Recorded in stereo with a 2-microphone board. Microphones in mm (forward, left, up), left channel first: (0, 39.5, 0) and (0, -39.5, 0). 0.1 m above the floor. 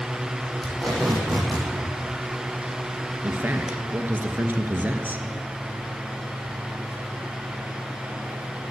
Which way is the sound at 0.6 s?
5° left (ahead or behind).